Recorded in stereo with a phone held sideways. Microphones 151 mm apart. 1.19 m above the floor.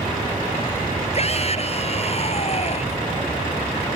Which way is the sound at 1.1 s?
45° left (ahead or behind).